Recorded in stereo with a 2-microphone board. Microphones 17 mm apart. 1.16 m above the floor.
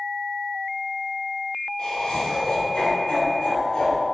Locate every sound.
1.8 s laughter: 85° left, 3 m; by 4.0 s 55° left (ahead or behind), 4 m